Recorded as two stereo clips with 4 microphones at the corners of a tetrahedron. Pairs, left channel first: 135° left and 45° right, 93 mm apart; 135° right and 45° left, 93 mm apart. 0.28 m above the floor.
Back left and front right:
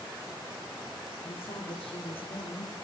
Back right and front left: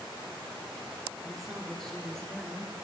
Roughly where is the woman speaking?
Behind left.